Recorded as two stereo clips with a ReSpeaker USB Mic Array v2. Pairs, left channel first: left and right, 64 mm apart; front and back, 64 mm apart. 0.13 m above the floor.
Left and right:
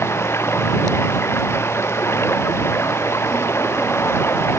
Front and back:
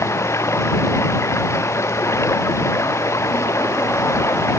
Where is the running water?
40° left.